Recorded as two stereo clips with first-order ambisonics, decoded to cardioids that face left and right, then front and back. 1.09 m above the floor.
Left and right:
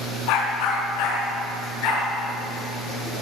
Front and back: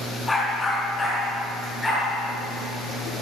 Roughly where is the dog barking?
Left.